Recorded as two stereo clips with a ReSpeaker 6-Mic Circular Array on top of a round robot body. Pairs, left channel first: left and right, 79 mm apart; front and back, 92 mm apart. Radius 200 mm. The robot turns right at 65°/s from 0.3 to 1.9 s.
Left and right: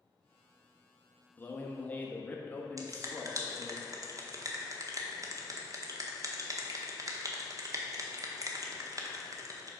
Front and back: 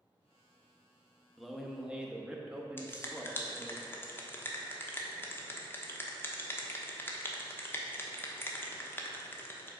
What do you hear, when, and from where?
1.4 s a man speaking: 80° left, 1.1 m; by 3.8 s 115° left, 1.1 m
2.8 s a finger snap: 60° right, 1.4 m